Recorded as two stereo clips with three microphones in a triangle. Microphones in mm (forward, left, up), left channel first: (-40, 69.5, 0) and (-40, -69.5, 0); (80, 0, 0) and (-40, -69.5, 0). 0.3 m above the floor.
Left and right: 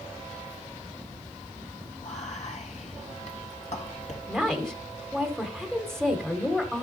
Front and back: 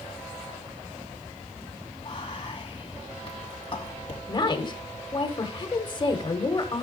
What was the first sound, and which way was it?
Whispering, 75° left.